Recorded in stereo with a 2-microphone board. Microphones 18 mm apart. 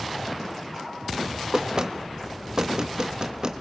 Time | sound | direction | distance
1.5 | knocking | 45° right (ahead or behind) | 1.4 m